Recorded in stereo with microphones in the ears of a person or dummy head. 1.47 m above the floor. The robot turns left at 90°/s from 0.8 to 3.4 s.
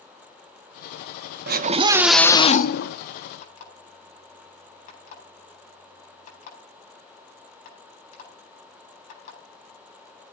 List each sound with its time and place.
1.5 s a scream: 120° right, 0.7 m; by 3.0 s 100° left, 0.7 m
3.4 s an alarm clock: 50° left (ahead or behind), 9 m